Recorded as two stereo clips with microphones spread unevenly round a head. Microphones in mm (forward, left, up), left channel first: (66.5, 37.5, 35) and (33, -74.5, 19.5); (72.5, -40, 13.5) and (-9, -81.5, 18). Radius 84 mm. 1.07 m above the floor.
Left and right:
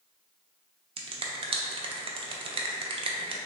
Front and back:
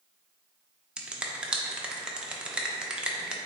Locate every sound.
1.0 s a finger snap: 70° right, 0.5 m